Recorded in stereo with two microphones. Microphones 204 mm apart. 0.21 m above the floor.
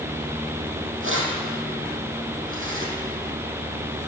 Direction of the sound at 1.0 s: 80° right.